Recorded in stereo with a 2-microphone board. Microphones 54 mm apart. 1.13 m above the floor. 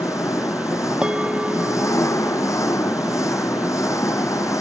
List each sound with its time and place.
0.0 s an engine running: 80° left
1.0 s a bell: 20° right (ahead or behind)